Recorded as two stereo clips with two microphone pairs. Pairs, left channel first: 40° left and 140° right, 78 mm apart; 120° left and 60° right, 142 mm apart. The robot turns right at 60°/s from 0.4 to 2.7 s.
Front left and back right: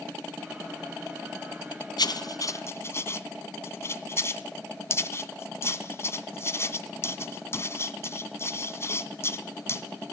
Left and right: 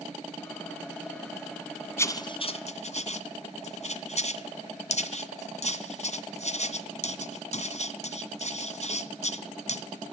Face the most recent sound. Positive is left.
turn(degrees=90)